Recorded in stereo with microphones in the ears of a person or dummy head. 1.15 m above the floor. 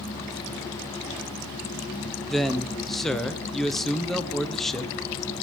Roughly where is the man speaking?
Centre.